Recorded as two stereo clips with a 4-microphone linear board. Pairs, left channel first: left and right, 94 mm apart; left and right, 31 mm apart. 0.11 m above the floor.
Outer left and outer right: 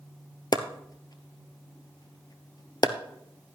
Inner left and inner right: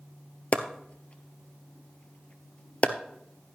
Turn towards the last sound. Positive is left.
turn(degrees=45)  # may be behind; listen again after turning